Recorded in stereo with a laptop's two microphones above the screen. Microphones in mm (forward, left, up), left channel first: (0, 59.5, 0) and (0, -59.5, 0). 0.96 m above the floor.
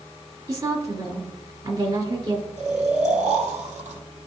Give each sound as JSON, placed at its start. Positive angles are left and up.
{"t": 0.5, "sound": "a woman speaking", "side_deg": -45, "distance_m": 1.9}
{"t": 2.6, "sound": "snoring", "side_deg": -80, "distance_m": 1.4}